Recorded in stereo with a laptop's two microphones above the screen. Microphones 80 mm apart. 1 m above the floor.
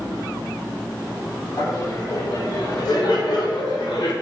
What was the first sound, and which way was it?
Laughter, 45° left (ahead or behind).